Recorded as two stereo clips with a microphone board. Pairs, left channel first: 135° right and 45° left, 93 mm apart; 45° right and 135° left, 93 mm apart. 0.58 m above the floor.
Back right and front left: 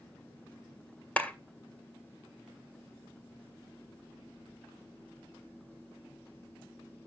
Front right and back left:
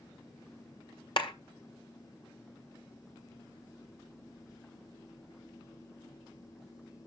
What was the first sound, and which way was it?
A clap, 60° right.